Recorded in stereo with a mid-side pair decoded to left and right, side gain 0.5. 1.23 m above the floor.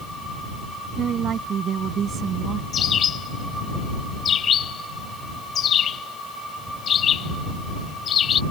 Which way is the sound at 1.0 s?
50° right.